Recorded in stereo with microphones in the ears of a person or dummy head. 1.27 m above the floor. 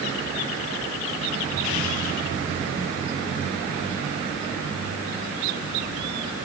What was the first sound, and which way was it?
Only background noise.